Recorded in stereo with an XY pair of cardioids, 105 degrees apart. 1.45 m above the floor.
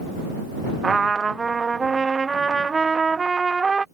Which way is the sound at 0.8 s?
30° right.